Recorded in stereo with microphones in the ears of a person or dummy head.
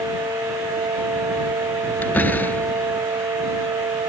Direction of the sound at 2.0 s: 10° left (ahead or behind).